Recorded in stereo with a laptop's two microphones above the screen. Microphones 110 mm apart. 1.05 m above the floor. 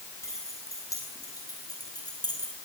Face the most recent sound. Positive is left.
turn(degrees=40)  # may be behind; listen again after turning